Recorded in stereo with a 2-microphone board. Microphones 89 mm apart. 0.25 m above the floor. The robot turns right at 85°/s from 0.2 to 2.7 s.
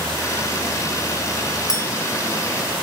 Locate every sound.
1.7 s a clink: 40° left (ahead or behind), 1.8 m; by 1.8 s 50° left (ahead or behind), 1.8 m